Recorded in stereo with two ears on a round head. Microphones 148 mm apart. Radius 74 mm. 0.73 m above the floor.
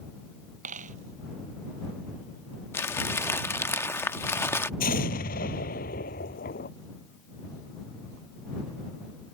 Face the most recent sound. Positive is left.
turn(degrees=55)  # may be behind; listen again after turning